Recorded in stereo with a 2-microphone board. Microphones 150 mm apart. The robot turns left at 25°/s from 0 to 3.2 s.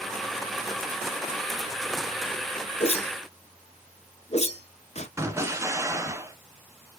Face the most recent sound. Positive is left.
turn(degrees=-20)  # may be behind; listen again after turning